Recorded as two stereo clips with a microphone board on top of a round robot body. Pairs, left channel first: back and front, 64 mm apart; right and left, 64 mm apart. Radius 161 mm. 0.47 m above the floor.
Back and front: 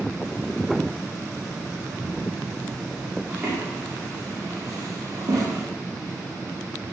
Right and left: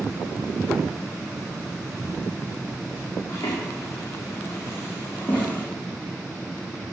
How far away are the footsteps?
About 2.5 m.